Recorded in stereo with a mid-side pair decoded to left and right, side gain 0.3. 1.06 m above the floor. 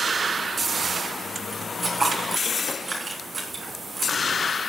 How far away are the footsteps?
About 4.5 m.